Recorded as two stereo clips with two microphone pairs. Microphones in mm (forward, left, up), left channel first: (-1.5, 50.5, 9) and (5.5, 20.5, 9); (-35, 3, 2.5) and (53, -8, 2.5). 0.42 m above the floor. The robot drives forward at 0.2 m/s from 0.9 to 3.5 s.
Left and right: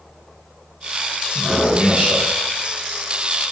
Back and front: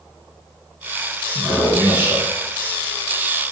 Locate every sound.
1.4 s a man speaking: 70° right, 1.9 m; by 2.3 s 80° right, 1.8 m